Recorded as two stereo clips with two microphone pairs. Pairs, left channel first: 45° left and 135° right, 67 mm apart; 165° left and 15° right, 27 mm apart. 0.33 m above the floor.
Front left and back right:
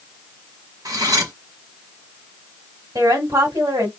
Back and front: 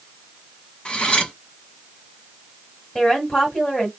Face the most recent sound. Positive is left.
turn(degrees=-120)